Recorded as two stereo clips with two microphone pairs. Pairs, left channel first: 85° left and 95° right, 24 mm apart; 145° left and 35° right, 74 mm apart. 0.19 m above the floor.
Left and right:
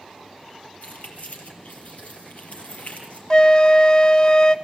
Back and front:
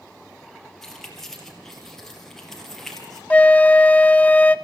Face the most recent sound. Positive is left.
turn(degrees=100)